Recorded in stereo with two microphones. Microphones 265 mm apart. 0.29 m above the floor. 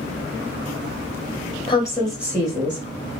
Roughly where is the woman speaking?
Left.